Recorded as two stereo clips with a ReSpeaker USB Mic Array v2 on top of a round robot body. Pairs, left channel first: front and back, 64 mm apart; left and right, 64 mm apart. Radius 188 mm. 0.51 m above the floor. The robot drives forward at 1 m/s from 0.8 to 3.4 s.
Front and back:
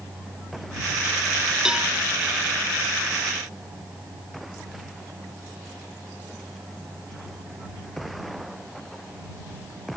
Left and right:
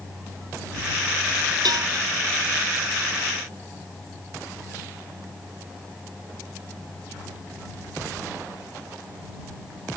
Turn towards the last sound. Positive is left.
turn(degrees=-115)